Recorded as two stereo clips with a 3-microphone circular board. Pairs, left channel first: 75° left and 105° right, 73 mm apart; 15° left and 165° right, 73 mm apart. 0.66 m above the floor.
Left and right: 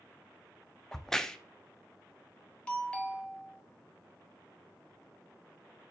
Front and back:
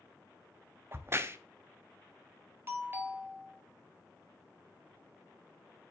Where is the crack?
155° left, 0.5 m.